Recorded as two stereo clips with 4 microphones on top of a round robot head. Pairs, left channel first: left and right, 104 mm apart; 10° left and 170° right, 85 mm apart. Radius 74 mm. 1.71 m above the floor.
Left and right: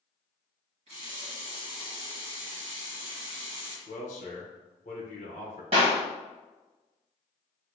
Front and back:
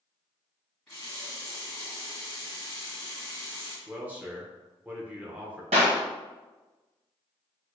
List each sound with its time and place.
0.9 s a running tap: 70° right, 1.4 m
3.9 s a man speaking: 120° left, 0.8 m
5.7 s a clap: 140° right, 1.1 m